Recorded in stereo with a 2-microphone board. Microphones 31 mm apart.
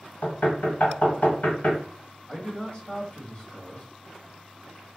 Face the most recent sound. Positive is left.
turn(degrees=35)  # may be behind; listen again after turning